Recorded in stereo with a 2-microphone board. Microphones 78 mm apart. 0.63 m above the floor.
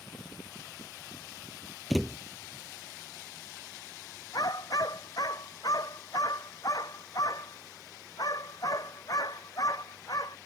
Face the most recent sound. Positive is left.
turn(degrees=50)  # may be behind; listen again after turning